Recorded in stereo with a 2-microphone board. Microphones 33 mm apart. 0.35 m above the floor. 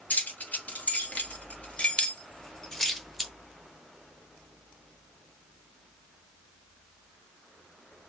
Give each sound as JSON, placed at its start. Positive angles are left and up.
{"t": 0.1, "sound": "keys jangling", "side_deg": 65, "distance_m": 1.9}